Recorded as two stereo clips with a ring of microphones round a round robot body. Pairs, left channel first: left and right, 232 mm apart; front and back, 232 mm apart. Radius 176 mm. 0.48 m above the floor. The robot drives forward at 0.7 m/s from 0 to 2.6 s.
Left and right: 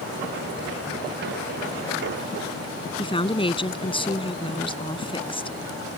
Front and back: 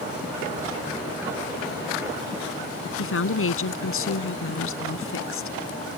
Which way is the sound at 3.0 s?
20° left.